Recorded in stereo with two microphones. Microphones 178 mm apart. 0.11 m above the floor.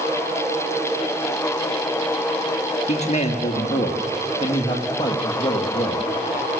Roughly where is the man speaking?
Left.